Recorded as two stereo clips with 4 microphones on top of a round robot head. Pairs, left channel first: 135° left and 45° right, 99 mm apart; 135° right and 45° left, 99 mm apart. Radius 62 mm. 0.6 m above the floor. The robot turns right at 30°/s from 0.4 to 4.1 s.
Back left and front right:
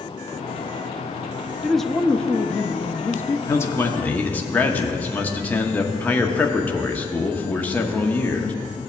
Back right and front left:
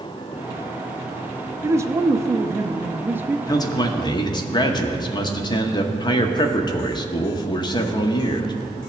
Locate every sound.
1.6 s a man speaking: 45° left, 0.6 m; by 3.4 s 100° left, 0.6 m
3.5 s a man speaking: 170° right, 1.0 m; by 8.8 s 155° right, 1.0 m